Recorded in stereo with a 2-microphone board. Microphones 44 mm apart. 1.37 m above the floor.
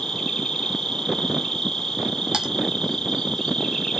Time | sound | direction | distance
0.0 | an insect | 5° left (ahead or behind) | 3 m
2.3 | typing on a keyboard | 20° right (ahead or behind) | 1.8 m